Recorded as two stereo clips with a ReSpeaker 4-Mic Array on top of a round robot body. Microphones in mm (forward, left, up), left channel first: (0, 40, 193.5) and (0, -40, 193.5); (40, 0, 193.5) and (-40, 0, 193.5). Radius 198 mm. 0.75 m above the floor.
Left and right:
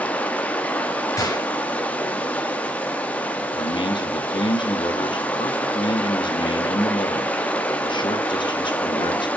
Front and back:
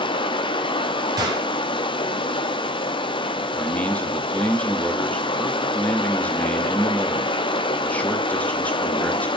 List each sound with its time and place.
0.0 s running water: 15° left, 0.7 m
1.2 s a gunshot: 140° left, 1.3 m
3.5 s a man speaking: 75° left, 1.3 m